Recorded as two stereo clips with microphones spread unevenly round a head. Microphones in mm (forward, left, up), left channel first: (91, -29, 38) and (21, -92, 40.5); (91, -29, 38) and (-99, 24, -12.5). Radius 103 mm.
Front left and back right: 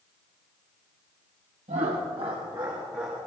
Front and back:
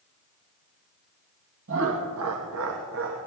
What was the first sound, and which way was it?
Laughter, 170° right.